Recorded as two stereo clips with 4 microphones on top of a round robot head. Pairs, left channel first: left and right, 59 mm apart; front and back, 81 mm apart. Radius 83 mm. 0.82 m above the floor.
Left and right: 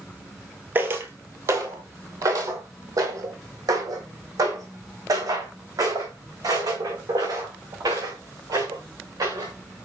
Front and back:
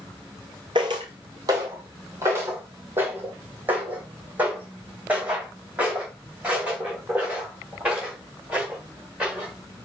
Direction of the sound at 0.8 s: 135° right.